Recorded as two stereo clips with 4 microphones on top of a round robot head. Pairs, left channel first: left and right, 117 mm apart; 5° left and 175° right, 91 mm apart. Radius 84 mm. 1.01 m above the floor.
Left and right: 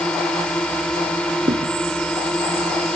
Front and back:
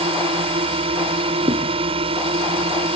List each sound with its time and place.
0.0 s a drone: 175° left
1.5 s a thud: 140° right